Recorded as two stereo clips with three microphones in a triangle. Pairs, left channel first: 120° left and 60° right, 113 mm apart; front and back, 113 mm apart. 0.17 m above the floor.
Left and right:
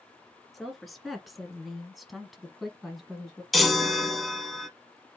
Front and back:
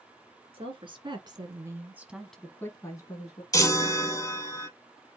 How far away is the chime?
About 0.9 m.